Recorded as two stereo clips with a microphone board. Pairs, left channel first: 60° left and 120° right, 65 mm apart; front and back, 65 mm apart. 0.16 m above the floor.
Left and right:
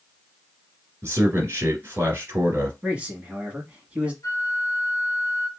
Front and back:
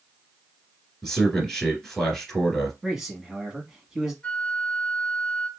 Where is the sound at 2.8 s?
110° right, 1.2 m.